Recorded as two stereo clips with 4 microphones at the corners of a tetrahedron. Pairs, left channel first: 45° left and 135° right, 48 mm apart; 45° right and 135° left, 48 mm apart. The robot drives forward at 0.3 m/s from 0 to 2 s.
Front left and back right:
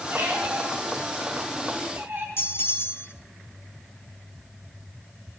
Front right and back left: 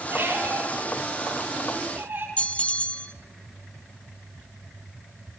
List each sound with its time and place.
0.1 s a squeak: 175° right, 5 m
2.4 s a bell: 15° left, 0.7 m